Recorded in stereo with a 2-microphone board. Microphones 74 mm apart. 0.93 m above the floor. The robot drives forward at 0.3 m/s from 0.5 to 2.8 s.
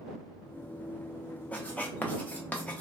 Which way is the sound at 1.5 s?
20° left (ahead or behind).